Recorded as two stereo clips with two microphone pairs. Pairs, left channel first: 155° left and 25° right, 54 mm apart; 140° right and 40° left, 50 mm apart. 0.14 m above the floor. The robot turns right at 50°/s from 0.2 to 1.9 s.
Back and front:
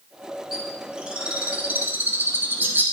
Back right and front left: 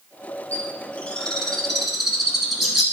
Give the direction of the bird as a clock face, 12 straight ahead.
4 o'clock.